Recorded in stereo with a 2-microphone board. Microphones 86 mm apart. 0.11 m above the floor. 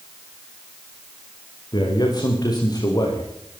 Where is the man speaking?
55° left (ahead or behind), 8 m; by 3.3 s 45° left (ahead or behind), 8 m.